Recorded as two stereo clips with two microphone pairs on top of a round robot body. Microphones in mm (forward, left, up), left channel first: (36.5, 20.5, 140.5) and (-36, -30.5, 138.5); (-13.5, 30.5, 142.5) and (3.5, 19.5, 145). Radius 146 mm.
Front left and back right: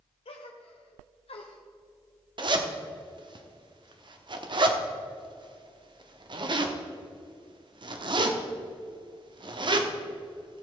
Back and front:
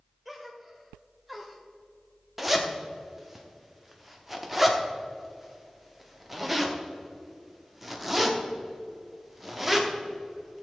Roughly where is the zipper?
Right.